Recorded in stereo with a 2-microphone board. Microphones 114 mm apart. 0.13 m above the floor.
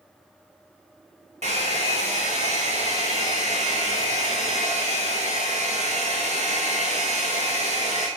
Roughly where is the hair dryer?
Right.